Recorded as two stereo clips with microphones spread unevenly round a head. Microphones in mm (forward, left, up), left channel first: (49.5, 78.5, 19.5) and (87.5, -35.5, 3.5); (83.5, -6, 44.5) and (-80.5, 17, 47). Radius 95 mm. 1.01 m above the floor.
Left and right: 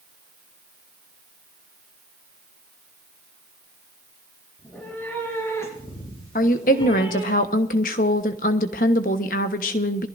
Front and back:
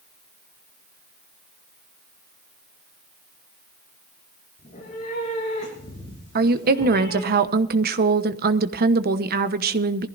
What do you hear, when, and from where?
4.6 s a cat meowing: 30° left, 6 m; by 7.3 s 65° left, 4.5 m
6.3 s a woman speaking: 140° left, 1.1 m